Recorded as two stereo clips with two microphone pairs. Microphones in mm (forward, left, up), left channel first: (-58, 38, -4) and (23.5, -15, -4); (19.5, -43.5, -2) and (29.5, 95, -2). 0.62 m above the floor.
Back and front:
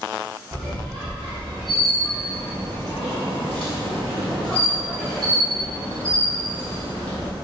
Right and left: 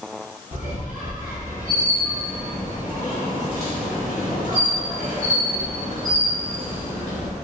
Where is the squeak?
70° left, 1.8 m.